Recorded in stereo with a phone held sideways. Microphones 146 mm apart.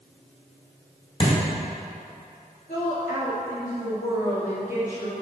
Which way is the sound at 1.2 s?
35° left (ahead or behind).